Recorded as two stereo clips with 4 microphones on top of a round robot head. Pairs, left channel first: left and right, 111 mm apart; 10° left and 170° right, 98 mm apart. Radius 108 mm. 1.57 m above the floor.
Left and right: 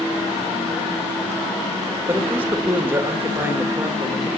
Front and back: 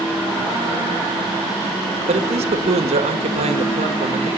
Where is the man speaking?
165° right, 1.9 m.